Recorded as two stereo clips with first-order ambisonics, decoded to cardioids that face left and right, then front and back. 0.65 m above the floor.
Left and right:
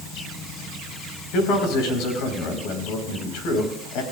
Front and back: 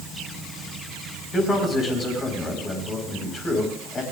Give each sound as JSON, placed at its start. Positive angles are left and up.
{"t": 1.3, "sound": "a man speaking", "azimuth_deg": 65, "distance_m": 4.5}